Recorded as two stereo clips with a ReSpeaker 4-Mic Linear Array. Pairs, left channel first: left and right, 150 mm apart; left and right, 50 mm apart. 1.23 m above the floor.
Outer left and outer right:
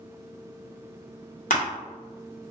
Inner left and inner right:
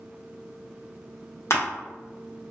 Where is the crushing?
55° left (ahead or behind), 1.0 m.